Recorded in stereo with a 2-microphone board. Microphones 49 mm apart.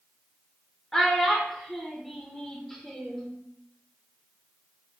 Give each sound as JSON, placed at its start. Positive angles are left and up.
{"t": 0.9, "sound": "a child speaking", "side_deg": 10, "distance_m": 0.6}